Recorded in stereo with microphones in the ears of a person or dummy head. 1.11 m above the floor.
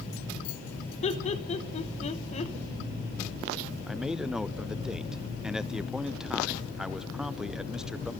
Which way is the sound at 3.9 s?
5° right (ahead or behind).